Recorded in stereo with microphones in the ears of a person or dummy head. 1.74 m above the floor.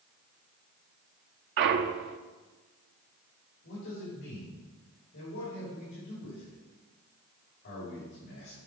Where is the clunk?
50° right (ahead or behind), 0.5 m.